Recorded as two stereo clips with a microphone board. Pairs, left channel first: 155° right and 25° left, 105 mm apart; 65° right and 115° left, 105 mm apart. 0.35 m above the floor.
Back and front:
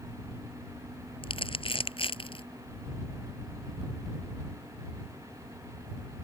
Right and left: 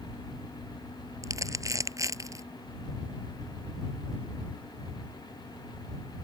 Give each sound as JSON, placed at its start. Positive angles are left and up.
{"t": 1.2, "sound": "crumpling", "azimuth_deg": 170}